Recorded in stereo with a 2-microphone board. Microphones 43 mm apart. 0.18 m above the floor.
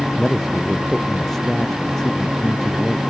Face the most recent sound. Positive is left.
turn(degrees=10)  # may be behind; listen again after turning